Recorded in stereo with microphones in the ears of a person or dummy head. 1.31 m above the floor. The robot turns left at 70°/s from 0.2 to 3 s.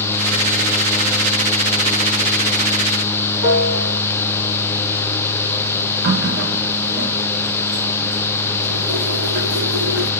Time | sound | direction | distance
3.4 | a piano | 70° right (ahead or behind) | 2.5 m
6.0 | a running tap | 65° right (ahead or behind) | 1.8 m